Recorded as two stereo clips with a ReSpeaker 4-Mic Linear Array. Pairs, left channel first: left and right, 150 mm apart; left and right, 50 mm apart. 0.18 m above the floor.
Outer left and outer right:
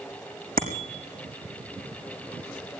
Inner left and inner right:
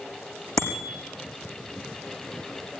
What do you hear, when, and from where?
0.6 s a bicycle bell: 70° right (ahead or behind), 6.5 m